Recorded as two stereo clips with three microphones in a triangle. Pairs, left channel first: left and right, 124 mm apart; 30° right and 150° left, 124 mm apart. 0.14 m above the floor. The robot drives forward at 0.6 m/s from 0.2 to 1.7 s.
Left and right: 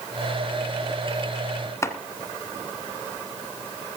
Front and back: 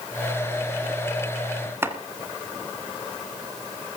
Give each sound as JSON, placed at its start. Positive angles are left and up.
{"t": 1.8, "sound": "chopping", "azimuth_deg": 110, "distance_m": 1.5}